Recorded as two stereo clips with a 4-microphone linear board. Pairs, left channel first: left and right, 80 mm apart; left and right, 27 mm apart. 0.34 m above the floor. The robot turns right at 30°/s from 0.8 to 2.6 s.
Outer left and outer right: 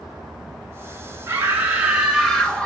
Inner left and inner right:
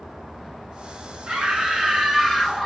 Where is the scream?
30° right, 3.5 m; by 2.7 s 10° left, 3.5 m.